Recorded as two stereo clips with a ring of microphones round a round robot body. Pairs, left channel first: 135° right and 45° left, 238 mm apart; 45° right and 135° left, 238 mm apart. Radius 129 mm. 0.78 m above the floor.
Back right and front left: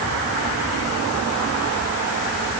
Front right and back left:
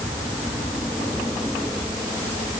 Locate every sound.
Only background noise.